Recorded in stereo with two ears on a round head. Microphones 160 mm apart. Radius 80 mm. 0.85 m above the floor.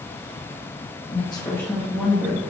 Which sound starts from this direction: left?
A woman speaking, at 1.1 s.